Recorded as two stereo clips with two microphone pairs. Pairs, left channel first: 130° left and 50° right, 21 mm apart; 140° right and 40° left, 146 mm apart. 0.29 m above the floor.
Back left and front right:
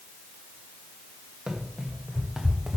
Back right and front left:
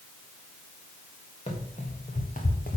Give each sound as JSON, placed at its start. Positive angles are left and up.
{"t": 1.5, "sound": "running footsteps", "azimuth_deg": -95, "distance_m": 2.5}